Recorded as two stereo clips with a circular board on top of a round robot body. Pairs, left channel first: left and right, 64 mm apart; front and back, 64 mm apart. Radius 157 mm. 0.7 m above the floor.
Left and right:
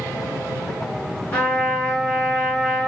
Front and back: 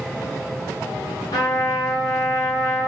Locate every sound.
1.3 s a trumpet: 25° left, 1.3 m